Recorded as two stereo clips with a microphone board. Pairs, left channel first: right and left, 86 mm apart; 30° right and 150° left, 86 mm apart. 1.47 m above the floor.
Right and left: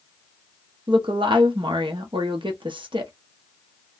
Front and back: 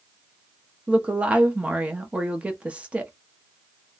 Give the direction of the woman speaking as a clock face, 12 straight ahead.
10 o'clock.